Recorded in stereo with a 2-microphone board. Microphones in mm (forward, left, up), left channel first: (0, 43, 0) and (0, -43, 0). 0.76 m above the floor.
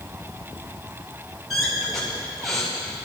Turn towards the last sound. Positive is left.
turn(degrees=0)  # may be behind; listen again after turning